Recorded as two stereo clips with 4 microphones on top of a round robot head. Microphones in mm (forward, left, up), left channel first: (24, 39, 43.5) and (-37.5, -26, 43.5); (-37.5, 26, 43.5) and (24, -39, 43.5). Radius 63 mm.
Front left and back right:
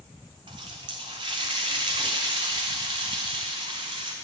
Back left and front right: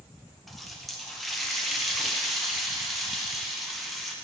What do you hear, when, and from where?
0.5 s a running tap: 140° right, 0.8 m